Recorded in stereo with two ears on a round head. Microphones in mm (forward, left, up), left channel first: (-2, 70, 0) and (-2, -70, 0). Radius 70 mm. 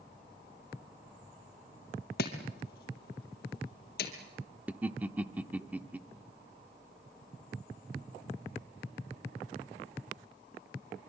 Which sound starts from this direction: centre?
Laughter, at 4.7 s.